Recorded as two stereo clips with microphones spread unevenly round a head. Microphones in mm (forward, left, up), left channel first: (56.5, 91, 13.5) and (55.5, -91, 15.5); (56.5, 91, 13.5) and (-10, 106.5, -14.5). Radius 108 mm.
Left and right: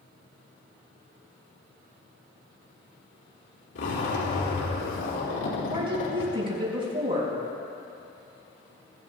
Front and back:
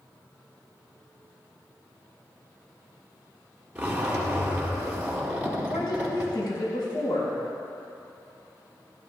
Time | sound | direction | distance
3.8 | a zipper | 90° left | 4.5 m
5.7 | a woman speaking | 30° right | 6 m